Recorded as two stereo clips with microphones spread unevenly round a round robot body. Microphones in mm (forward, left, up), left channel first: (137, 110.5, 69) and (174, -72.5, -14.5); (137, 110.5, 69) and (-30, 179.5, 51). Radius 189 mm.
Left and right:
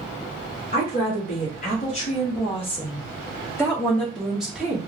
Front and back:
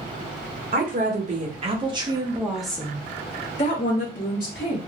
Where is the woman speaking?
170° left, 1.3 m; by 4.8 s 15° right, 1.3 m.